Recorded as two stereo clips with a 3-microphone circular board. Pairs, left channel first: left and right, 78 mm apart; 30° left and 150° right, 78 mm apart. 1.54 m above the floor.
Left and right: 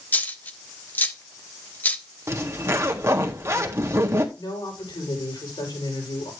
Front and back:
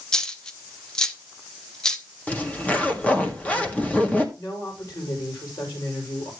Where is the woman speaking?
70° left, 6 m.